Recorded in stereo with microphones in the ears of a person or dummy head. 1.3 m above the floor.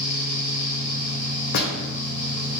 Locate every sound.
0.0 s a fan: 40° left (ahead or behind), 1.6 m
1.5 s a door slam: 55° left (ahead or behind), 0.7 m